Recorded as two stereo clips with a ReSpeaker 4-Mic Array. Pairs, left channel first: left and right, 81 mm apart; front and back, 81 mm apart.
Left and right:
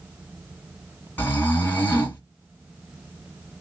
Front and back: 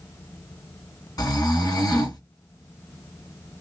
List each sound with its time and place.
1.2 s snoring: 25° left, 2.5 m